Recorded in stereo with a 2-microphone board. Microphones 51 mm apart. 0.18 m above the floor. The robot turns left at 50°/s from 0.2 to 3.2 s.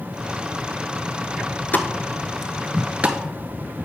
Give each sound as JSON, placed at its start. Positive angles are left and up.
{"t": 1.7, "sound": "a pop", "side_deg": 35, "distance_m": 0.7}